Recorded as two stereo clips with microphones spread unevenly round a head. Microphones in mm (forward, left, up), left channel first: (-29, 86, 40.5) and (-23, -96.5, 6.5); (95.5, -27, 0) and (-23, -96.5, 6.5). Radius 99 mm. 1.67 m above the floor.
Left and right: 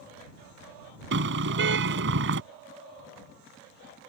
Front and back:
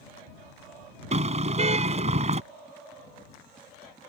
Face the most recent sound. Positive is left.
turn(degrees=-115)